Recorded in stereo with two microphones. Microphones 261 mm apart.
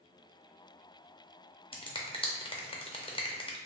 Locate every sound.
1.7 s a finger snap: 20° left (ahead or behind), 0.5 m